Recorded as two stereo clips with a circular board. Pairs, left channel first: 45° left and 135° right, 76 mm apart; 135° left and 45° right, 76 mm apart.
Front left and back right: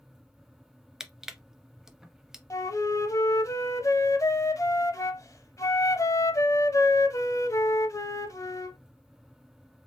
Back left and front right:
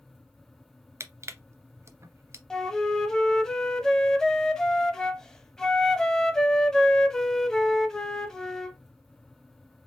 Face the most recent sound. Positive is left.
turn(degrees=55)